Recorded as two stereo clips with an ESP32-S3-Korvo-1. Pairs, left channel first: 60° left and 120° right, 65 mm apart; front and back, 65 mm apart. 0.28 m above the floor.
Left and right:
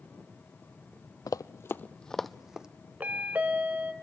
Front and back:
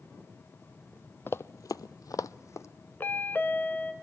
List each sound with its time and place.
1.3 s running footsteps: 50° left, 0.6 m; by 2.7 s 45° right, 0.9 m
3.0 s a chime: 60° right, 1.1 m